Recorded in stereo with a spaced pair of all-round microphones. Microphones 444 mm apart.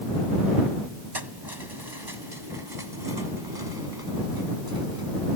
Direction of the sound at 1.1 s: 60° right (ahead or behind).